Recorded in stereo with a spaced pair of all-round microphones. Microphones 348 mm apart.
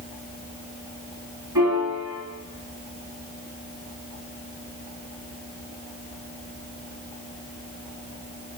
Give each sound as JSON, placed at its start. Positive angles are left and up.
{"t": 1.6, "sound": "a piano", "side_deg": -70, "distance_m": 3.0}